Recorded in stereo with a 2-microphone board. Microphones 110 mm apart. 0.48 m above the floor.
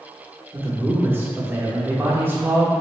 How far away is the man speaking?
About 0.8 m.